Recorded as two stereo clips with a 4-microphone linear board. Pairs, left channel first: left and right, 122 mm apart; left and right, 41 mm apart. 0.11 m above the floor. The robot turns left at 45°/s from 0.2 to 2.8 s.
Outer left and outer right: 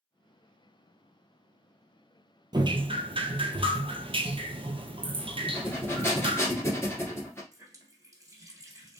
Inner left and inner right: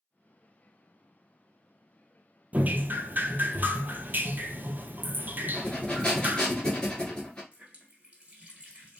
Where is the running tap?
25° right (ahead or behind), 1.4 m.